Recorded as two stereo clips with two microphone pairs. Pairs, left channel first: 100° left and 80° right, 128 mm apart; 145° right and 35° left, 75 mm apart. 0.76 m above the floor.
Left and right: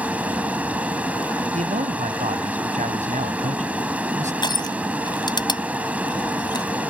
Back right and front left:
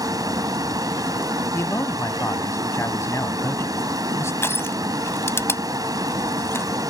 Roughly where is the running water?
Ahead.